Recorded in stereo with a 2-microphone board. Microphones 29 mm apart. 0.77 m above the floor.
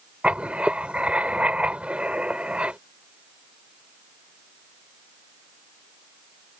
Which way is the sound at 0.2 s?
45° right (ahead or behind).